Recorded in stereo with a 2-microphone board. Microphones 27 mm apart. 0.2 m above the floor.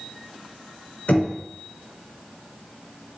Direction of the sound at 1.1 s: 60° left (ahead or behind).